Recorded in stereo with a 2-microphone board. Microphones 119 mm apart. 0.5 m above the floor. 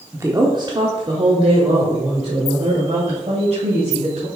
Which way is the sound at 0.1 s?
20° right (ahead or behind).